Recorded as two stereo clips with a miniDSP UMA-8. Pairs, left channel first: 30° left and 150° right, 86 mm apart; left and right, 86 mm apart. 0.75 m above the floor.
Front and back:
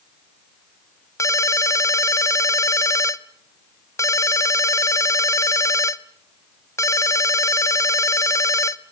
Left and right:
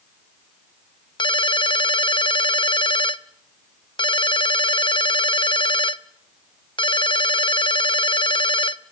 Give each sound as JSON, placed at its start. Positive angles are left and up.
{"t": 1.2, "sound": "a ringtone", "azimuth_deg": 80, "distance_m": 0.7}